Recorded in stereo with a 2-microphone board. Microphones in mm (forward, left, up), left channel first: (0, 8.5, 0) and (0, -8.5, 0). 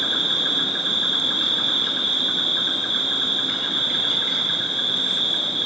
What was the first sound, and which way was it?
An insect, 55° right (ahead or behind).